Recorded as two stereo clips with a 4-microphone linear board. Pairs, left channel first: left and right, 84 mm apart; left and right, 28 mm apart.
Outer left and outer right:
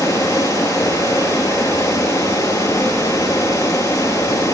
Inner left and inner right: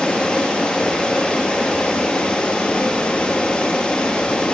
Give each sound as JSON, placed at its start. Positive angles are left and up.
{"t": 0.0, "sound": "running water", "side_deg": 35, "distance_m": 1.2}